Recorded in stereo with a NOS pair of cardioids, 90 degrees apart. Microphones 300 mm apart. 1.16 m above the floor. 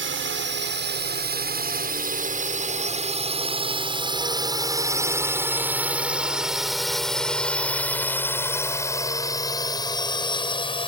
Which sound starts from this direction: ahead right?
A drone, at 0.0 s.